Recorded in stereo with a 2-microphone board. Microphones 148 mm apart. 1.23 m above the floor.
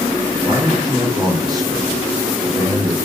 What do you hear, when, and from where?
0.4 s a man speaking: 25° right (ahead or behind), 3 m